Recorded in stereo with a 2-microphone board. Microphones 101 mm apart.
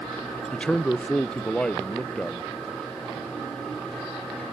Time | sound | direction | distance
0.5 | a man speaking | 10° left (ahead or behind) | 0.6 m